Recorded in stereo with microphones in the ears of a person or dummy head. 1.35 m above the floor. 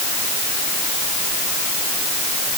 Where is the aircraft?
No aircraft in this recording.